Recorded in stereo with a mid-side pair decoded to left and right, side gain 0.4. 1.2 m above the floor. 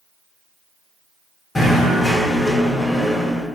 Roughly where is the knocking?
Ahead left.